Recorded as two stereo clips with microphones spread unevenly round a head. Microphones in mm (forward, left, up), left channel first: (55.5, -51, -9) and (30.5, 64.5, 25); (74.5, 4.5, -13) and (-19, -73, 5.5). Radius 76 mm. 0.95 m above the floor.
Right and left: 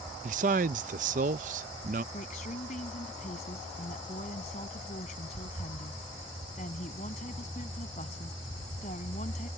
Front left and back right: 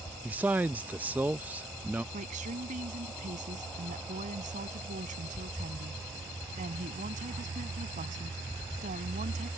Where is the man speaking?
135° left.